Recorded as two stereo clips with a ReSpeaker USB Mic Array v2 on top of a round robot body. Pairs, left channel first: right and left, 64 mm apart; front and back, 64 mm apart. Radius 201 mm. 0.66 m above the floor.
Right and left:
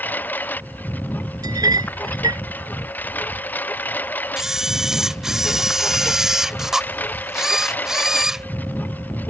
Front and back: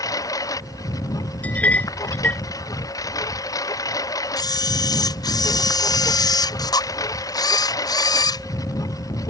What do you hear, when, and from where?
0.0 s a lawn mower: 30° right
1.4 s a clink: 70° left
4.4 s a camera shutter: 5° left